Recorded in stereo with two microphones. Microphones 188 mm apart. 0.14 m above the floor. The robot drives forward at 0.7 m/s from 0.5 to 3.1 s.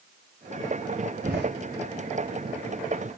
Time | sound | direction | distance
1.2 | a door slam | 55° right (ahead or behind) | 7.5 m